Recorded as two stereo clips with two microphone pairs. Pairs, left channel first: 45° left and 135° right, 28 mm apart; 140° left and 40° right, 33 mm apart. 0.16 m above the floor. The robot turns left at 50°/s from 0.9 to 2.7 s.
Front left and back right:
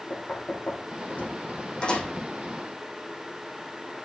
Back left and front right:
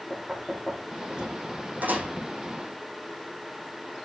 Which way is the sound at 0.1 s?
35° left.